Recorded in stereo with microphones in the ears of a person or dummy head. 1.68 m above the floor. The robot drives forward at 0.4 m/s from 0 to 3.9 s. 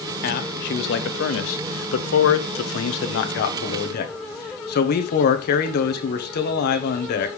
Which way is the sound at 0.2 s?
55° left (ahead or behind).